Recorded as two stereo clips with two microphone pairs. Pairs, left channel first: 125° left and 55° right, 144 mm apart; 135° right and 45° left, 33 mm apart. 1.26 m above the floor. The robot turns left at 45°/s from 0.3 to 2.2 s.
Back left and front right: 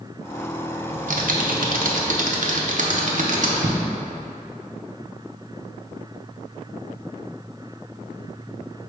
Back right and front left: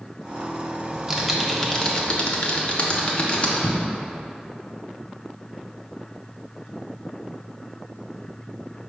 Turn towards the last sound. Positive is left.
turn(degrees=-80)